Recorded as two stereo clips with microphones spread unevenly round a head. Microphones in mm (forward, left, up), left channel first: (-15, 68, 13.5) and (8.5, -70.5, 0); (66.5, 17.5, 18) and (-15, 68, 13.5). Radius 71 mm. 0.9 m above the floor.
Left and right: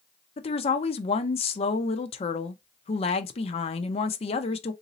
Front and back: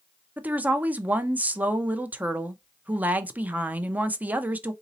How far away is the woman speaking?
About 0.6 m.